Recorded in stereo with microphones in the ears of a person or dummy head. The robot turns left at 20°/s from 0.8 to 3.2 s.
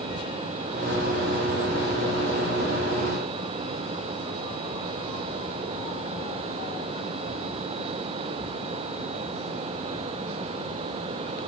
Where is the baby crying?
I don't hear a baby crying.